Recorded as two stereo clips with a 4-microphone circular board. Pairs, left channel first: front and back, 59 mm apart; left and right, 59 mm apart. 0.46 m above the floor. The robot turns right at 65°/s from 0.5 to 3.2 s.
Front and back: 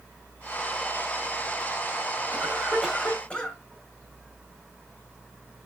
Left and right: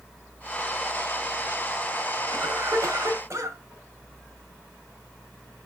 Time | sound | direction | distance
2.3 | a cough | 125° right | 2 m